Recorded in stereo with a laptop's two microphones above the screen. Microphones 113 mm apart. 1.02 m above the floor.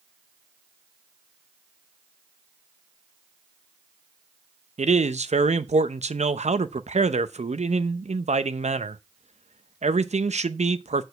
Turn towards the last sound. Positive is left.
turn(degrees=-75)  # may be behind; listen again after turning